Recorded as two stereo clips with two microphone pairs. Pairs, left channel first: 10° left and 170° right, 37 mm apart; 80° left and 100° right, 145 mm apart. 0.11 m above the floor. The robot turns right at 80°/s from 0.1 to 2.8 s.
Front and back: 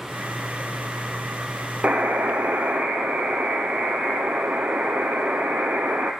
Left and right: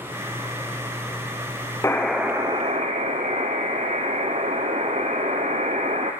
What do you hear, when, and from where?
1.8 s a buzzer: 145° left, 1.0 m; by 6.1 s 135° right, 1.0 m